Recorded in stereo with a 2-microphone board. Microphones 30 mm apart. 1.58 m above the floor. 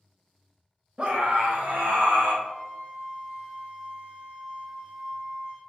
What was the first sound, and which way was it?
A scream, 30° right (ahead or behind).